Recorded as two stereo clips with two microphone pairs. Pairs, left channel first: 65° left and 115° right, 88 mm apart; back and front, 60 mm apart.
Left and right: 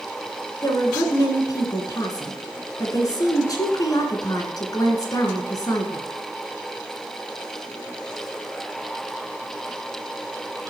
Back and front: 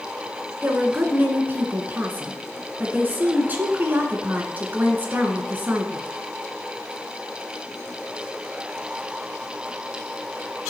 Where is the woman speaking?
45° left, 2 m.